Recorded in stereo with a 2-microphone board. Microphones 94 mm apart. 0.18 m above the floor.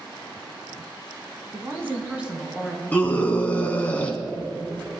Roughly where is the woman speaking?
Right.